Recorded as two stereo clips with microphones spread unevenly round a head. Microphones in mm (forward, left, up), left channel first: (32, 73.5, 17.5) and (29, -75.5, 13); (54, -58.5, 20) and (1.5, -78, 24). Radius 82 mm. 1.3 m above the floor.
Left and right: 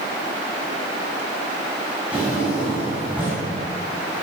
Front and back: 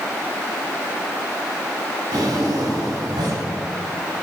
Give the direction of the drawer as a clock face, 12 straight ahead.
6 o'clock.